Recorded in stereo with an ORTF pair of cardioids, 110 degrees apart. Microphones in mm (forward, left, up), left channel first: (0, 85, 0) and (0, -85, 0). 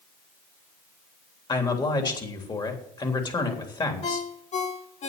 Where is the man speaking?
25° left, 3.5 m.